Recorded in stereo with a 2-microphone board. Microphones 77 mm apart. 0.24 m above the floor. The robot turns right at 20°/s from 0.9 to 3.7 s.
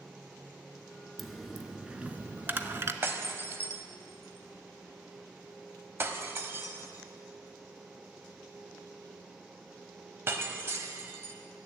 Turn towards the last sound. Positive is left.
turn(degrees=-30)  # may be behind; listen again after turning